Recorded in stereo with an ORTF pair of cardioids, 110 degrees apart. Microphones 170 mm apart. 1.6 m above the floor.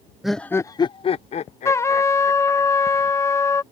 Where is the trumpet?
15° left.